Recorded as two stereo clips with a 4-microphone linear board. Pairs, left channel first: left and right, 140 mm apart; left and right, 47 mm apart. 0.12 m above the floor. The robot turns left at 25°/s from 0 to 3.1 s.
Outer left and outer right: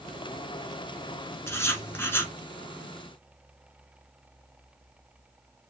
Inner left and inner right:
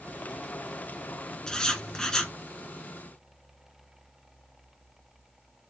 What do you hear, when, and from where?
1.5 s writing: 20° left (ahead or behind), 1.0 m; by 2.3 s 15° left (ahead or behind), 1.0 m